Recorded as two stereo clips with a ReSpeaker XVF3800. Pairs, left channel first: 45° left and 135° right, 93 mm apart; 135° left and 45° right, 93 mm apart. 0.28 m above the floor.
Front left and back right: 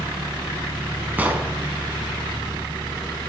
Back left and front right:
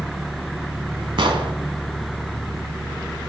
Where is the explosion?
65° right, 0.9 m.